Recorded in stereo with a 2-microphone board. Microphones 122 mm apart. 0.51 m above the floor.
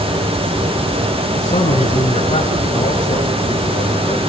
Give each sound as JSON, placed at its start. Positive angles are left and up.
{"t": 1.4, "sound": "a man speaking", "side_deg": 75, "distance_m": 5.0}